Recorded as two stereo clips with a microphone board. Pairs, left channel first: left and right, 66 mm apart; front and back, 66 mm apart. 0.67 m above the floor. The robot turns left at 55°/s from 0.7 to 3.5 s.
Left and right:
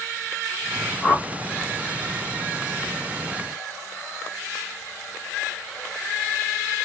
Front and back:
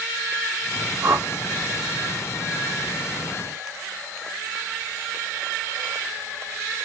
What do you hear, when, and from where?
1.0 s a whoosh: 165° left, 1.0 m; by 1.3 s 150° left, 1.0 m